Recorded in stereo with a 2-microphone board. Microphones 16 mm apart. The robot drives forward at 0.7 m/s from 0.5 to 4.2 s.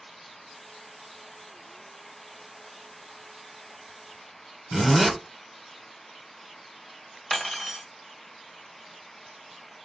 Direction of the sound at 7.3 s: Centre (ahead or behind).